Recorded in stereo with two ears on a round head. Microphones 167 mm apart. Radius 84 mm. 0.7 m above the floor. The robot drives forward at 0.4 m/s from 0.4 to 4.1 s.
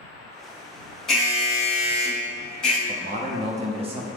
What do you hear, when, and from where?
1.1 s an alarm: 5° left (ahead or behind), 1.6 m
2.9 s a man speaking: 45° right (ahead or behind), 0.6 m; by 4.1 s 30° right (ahead or behind), 0.8 m